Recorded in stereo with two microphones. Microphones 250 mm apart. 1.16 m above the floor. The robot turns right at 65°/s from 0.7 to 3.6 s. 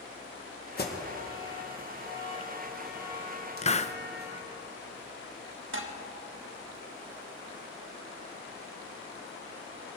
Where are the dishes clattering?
50° right (ahead or behind), 1.3 m.